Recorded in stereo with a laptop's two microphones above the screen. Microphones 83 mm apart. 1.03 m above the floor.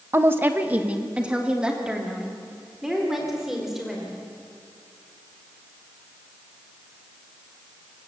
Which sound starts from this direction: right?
A woman speaking, at 0.1 s.